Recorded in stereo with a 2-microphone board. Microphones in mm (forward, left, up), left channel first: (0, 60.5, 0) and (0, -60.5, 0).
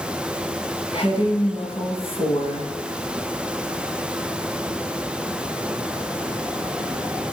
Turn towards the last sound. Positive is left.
turn(degrees=50)  # may be behind; listen again after turning